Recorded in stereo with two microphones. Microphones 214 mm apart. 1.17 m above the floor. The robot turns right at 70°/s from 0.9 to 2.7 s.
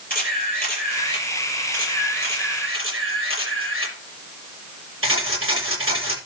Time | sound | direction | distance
0.1 | a camera shutter | 140° left | 7 m